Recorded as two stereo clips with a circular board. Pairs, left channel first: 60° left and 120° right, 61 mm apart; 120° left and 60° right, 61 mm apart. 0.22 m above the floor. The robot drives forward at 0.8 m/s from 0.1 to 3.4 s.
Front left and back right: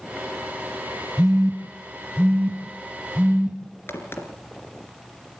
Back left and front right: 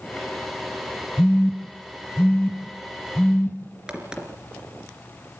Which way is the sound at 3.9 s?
15° left.